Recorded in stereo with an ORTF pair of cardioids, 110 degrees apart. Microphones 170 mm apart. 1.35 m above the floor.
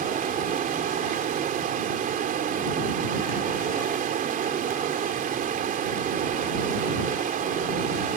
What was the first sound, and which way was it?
Running water, 55° right.